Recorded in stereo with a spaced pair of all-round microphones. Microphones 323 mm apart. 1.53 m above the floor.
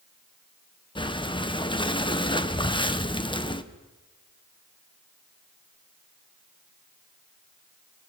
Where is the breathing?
15° left (ahead or behind), 1.0 m.